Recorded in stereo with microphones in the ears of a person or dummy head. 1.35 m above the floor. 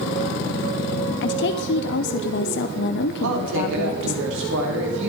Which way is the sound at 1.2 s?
60° left (ahead or behind).